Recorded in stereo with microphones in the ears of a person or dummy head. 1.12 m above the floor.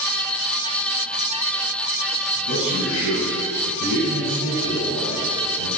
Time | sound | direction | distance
2.4 | a man speaking | 65° left (ahead or behind) | 9.5 m